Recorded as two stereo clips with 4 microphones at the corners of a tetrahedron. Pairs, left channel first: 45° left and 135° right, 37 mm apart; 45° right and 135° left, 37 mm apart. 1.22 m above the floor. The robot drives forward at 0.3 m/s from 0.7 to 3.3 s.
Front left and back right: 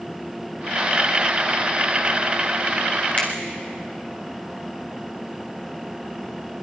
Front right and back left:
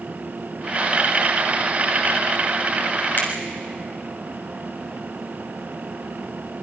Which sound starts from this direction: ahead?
A finger snap, at 3.2 s.